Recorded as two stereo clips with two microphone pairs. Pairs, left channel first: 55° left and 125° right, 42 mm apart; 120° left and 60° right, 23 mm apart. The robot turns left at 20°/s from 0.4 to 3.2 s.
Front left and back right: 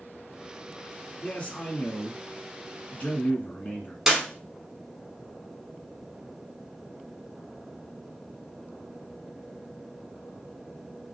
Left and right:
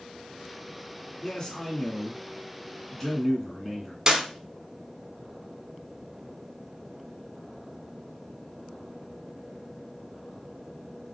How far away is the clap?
About 1.0 m.